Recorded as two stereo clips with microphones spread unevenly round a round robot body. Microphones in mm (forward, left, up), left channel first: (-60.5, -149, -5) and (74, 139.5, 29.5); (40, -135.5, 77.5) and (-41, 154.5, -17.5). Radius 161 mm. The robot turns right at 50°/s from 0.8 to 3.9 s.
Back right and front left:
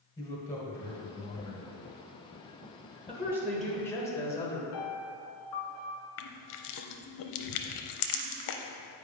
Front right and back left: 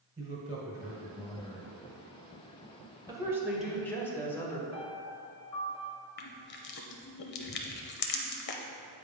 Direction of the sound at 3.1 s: 140° left.